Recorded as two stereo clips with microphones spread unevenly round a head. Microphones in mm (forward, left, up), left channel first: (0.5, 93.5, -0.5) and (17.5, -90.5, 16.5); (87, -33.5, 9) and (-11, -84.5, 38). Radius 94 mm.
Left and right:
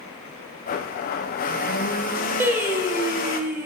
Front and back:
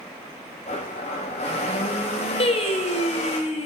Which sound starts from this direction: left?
A blender, at 0.7 s.